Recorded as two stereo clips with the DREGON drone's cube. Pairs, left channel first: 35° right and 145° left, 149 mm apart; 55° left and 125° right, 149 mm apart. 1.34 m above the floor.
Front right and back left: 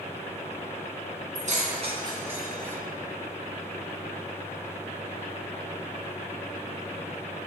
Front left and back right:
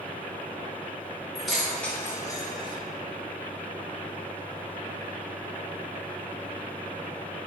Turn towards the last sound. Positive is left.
turn(degrees=30)